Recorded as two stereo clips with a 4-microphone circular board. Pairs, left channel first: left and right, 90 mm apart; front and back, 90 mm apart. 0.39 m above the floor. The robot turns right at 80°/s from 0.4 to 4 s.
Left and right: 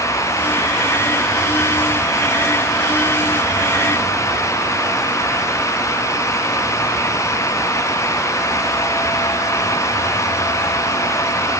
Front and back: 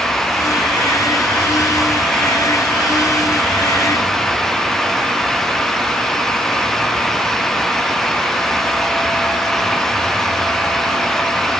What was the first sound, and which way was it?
Only background noise.